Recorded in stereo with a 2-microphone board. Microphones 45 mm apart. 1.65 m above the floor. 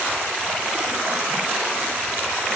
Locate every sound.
Only background noise.